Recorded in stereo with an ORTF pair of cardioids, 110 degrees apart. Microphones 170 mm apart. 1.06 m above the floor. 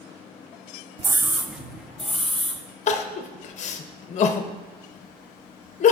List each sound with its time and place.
1.0 s a scream: 20° right, 0.5 m; by 2.6 s 5° left, 1.9 m
2.9 s crying: 45° left, 0.6 m